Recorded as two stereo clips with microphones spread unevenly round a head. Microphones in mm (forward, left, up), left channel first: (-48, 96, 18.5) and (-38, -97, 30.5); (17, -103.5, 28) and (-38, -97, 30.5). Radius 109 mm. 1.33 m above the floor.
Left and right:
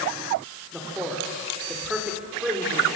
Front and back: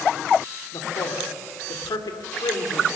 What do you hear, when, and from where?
0.7 s a man speaking: straight ahead, 3.5 m